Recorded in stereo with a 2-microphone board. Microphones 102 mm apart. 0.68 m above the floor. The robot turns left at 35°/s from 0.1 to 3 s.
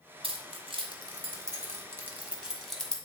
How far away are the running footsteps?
No running footsteps in this recording.